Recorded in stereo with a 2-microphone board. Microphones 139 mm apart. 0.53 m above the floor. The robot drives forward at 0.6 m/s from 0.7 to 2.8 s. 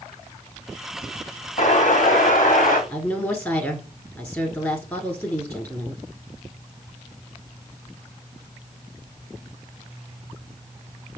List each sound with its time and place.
1.6 s an explosion: 65° left (ahead or behind), 1.5 m; by 2.8 s 80° left, 1.4 m
2.9 s a woman speaking: 15° left (ahead or behind), 1.2 m